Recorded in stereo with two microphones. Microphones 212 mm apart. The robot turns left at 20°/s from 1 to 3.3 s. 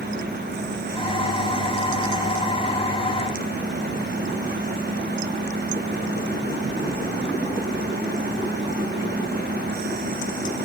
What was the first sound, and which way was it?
Only background noise.